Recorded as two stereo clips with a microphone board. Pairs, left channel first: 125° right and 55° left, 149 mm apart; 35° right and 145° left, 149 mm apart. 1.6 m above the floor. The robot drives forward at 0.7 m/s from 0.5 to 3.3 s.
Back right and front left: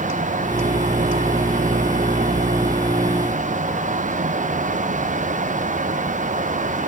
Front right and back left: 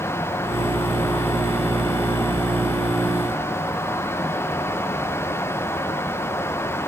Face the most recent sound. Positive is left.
No sound to turn to.